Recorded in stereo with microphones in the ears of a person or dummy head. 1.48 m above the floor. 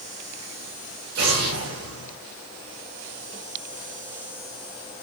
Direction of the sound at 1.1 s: 60° right (ahead or behind).